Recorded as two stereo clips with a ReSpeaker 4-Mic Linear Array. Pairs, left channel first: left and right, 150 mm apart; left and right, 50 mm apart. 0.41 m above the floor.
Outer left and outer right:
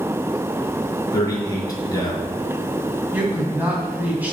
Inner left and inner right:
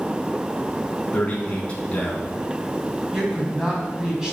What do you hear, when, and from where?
1.1 s a man speaking: 25° left (ahead or behind), 3.5 m
3.1 s a woman speaking: 10° right (ahead or behind), 3 m